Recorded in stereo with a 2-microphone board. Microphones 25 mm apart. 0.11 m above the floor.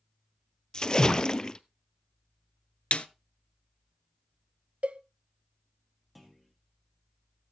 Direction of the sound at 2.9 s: 45° left (ahead or behind).